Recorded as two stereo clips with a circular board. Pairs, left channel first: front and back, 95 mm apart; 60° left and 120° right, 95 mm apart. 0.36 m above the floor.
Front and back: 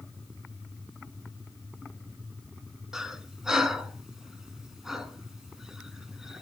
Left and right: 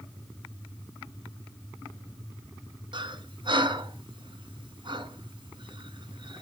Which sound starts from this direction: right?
Breathing, at 2.9 s.